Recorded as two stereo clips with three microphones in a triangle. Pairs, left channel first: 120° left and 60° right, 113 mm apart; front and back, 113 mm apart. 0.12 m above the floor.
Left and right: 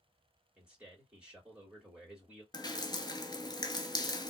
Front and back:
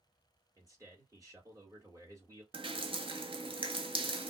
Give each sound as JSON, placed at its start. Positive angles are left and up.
{"t": 0.6, "sound": "a man speaking", "azimuth_deg": -140, "distance_m": 2.0}
{"t": 2.5, "sound": "dripping", "azimuth_deg": 165, "distance_m": 0.7}